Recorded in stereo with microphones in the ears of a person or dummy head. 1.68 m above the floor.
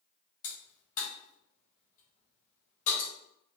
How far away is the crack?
About 2 m.